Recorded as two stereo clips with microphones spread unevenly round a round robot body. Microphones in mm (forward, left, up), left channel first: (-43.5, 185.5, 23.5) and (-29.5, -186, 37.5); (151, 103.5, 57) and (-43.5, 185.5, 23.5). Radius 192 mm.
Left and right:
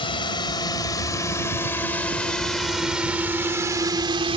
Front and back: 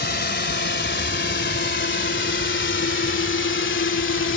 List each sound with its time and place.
0.0 s a drone: 15° left; by 4.4 s 15° right